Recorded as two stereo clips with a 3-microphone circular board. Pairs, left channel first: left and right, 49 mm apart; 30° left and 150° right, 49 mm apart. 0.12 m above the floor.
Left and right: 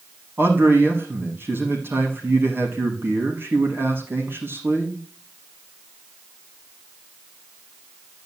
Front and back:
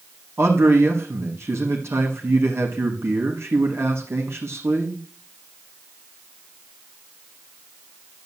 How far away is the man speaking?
About 5 m.